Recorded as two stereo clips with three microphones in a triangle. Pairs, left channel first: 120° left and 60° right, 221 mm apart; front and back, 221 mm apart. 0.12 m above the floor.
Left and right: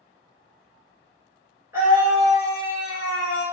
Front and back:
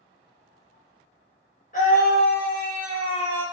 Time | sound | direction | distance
1.7 | a scream | 10° left | 1.7 m